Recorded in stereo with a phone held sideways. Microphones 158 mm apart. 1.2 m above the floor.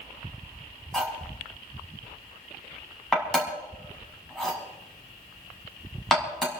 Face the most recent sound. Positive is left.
turn(degrees=0)  # may be behind; listen again after turning